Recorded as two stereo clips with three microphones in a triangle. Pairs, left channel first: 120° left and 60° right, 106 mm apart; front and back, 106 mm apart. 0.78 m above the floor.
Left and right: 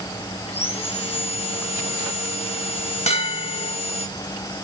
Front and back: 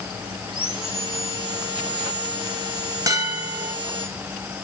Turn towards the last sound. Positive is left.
turn(degrees=125)